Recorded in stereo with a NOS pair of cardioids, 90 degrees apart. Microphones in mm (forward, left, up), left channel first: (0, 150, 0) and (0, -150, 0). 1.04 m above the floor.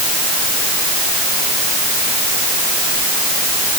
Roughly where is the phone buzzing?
No phone buzzing in this recording.